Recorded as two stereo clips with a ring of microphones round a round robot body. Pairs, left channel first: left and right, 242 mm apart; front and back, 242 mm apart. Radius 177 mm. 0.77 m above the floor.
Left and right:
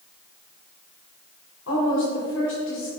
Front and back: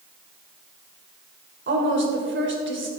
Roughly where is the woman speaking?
Behind left.